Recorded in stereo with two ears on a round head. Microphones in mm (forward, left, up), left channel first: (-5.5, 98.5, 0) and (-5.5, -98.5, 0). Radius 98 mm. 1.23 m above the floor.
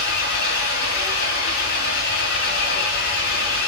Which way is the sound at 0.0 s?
55° left (ahead or behind).